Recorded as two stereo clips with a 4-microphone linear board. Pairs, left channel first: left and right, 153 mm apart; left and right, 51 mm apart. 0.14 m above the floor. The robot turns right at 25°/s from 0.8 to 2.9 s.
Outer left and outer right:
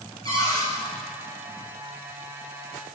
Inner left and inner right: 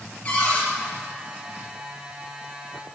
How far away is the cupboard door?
About 3.5 m.